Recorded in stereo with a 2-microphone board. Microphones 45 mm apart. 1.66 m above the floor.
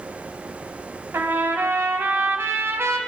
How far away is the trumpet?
About 0.6 m.